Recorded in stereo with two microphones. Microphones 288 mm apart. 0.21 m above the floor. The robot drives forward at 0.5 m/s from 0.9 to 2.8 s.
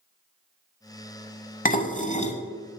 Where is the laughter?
No laughter in this recording.